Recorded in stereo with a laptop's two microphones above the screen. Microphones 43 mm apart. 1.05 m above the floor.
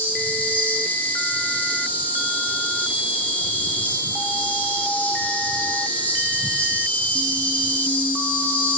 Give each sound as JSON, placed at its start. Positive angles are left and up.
{"t": 0.0, "sound": "an insect", "side_deg": 40, "distance_m": 5.0}